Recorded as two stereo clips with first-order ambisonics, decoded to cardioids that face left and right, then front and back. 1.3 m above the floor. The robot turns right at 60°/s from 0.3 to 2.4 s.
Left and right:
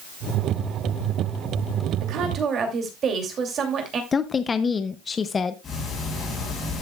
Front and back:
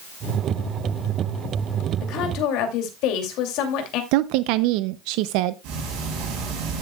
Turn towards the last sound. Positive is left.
turn(degrees=160)